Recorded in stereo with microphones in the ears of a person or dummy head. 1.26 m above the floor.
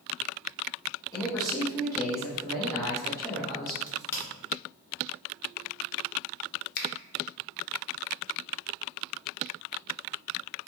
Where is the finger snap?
50° left (ahead or behind), 0.5 m.